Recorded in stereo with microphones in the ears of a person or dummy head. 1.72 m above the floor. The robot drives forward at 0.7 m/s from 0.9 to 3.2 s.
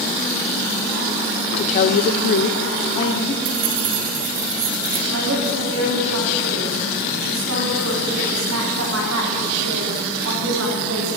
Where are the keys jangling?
55° right (ahead or behind), 1.6 m.